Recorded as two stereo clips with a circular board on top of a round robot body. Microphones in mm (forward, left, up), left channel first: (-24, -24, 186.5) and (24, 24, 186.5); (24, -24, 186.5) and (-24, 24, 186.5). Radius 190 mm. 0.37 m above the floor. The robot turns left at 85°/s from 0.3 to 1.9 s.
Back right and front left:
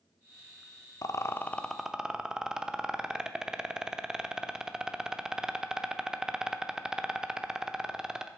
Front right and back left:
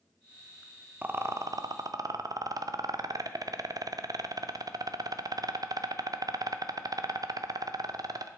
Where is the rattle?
160° right, 0.8 m; by 8.3 s 125° left, 0.8 m.